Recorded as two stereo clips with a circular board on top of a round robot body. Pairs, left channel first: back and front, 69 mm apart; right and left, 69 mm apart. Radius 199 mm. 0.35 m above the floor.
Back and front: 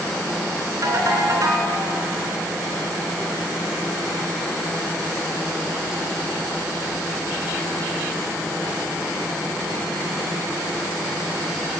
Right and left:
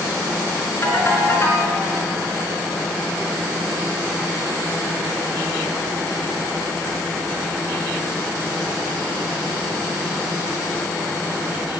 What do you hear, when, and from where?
0.8 s a ringtone: 40° right, 3.5 m